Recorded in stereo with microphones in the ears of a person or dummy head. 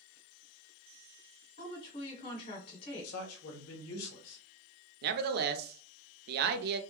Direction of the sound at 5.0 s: 55° right (ahead or behind).